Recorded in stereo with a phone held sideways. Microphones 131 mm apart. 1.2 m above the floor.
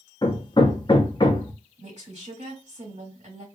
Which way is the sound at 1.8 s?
60° right (ahead or behind).